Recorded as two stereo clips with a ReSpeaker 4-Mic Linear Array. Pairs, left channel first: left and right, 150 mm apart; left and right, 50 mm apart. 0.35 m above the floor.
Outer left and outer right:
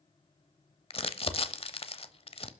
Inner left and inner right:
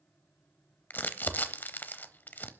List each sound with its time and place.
0.9 s crumpling: 40° left (ahead or behind), 0.9 m